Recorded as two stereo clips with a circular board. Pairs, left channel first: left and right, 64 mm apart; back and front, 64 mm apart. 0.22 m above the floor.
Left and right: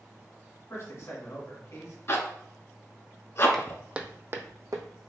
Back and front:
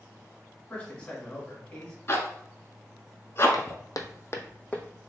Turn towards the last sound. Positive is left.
turn(degrees=-100)